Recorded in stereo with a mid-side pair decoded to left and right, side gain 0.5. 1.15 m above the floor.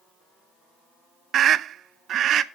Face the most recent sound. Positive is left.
turn(degrees=-60)